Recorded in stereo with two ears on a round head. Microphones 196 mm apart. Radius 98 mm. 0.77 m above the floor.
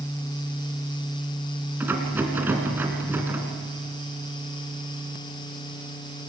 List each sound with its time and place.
1.8 s a rattle: 10° right (ahead or behind), 3.5 m